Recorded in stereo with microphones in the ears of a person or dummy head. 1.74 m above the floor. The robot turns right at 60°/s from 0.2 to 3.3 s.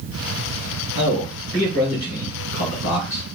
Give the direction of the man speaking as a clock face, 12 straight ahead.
1 o'clock.